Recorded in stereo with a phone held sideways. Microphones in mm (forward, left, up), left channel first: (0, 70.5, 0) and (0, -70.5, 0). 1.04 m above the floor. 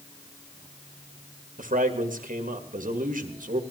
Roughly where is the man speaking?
Right.